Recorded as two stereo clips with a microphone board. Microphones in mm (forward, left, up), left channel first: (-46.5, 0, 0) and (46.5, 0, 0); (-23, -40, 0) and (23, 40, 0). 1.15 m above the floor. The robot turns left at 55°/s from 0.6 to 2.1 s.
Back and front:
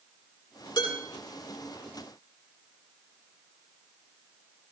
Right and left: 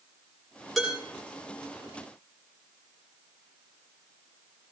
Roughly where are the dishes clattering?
Behind left.